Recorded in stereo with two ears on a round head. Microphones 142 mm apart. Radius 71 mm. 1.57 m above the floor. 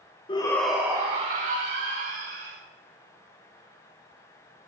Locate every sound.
0.3 s a shout: 30° left (ahead or behind), 1.1 m; by 2.6 s 65° right (ahead or behind), 3 m